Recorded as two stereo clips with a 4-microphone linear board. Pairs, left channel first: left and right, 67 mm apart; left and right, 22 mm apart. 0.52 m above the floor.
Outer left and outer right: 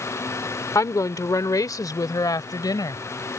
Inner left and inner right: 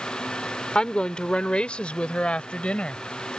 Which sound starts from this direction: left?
A woman speaking, at 0.8 s.